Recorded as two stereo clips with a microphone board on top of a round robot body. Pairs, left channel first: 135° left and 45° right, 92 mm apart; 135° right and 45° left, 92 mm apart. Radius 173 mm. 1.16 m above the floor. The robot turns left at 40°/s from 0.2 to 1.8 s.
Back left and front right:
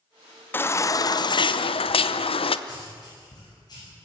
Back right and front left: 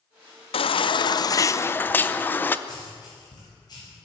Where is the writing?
Straight behind, 9 m.